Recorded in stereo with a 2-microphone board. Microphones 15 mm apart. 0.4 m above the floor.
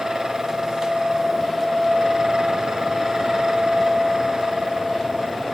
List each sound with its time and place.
Only background noise.